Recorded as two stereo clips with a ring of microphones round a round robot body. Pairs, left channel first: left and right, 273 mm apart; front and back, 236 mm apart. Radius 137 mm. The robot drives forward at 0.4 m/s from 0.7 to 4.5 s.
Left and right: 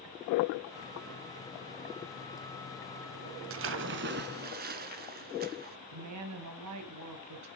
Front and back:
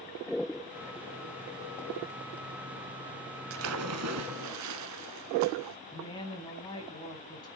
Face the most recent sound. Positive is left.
turn(degrees=-75)